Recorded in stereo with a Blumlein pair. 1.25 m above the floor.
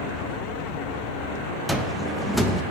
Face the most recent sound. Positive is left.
turn(degrees=0)